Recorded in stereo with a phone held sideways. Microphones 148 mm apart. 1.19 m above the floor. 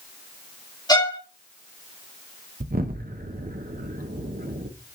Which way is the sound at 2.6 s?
90° right.